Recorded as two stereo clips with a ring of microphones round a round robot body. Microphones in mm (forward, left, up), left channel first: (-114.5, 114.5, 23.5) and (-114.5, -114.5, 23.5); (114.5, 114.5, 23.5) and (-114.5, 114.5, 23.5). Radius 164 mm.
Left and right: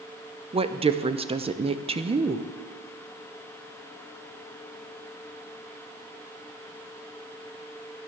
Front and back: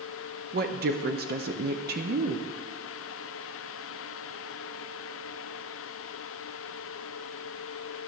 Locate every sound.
0.5 s a woman speaking: 150° right, 0.6 m